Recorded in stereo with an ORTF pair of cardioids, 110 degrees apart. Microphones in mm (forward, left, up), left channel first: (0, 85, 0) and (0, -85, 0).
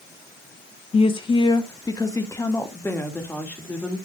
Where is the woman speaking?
35° left, 1.3 m; by 4.0 s 10° left, 3 m.